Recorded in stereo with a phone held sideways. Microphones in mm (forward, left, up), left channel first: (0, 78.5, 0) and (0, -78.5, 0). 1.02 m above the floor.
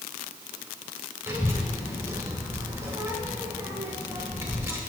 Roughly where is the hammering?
No hammering in this recording.